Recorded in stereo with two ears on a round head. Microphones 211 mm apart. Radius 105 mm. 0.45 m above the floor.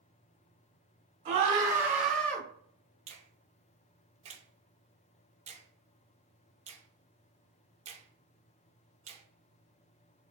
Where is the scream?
30° right (ahead or behind), 1.0 m; by 2.5 s 10° left (ahead or behind), 1.2 m.